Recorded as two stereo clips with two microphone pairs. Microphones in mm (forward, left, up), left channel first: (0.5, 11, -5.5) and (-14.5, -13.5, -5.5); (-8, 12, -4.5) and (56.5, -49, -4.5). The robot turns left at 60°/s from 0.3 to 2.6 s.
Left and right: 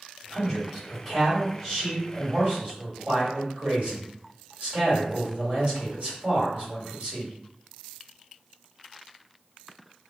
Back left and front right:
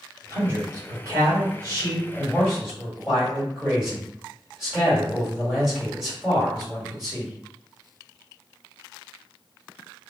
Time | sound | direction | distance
0.3 | a man speaking | 15° left | 1.7 m